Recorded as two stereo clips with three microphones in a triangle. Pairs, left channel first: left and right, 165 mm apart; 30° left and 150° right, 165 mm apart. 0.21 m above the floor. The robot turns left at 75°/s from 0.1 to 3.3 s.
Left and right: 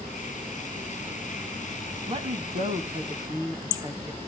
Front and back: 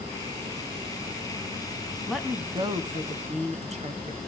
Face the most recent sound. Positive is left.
turn(degrees=-150)